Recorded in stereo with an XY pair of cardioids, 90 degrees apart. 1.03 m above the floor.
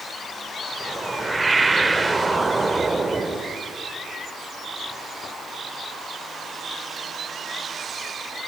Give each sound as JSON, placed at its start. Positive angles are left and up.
{"t": 0.8, "sound": "a whoosh", "azimuth_deg": -25, "distance_m": 2.0}